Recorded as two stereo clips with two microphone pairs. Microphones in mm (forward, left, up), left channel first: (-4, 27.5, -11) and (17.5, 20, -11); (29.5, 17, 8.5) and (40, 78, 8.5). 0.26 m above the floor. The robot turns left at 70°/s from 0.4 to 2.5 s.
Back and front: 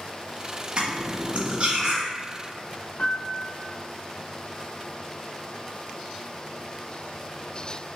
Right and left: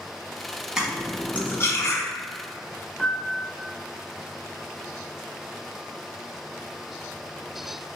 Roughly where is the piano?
Behind.